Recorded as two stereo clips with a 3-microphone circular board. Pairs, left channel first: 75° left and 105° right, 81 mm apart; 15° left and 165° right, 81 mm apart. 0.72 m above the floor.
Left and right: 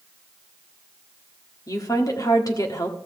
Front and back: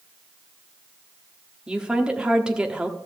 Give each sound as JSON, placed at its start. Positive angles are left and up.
{"t": 1.7, "sound": "a woman speaking", "azimuth_deg": 115, "distance_m": 1.3}